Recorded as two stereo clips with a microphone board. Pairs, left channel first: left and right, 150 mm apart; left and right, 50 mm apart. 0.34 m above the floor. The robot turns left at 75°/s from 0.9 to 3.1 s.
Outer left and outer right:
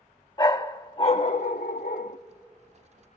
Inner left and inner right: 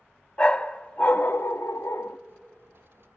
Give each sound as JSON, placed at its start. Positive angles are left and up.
{"t": 0.4, "sound": "a dog barking", "azimuth_deg": 150, "distance_m": 0.5}